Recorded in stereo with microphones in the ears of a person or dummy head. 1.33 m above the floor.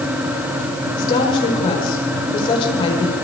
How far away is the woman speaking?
About 5 m.